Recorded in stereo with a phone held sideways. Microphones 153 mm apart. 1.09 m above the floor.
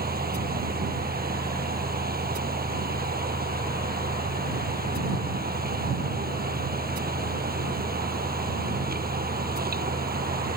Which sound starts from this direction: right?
A fan, at 0.0 s.